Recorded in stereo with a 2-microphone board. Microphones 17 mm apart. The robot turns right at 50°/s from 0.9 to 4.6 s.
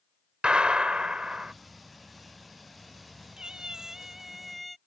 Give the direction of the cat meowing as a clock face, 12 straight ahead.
2 o'clock.